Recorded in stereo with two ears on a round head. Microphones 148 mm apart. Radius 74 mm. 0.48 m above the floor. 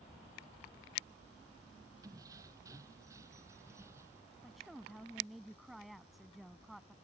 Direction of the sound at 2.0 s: 20° right (ahead or behind).